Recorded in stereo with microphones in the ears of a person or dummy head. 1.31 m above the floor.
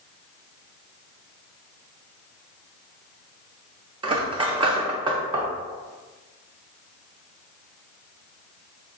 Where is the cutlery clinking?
25° right (ahead or behind), 0.5 m.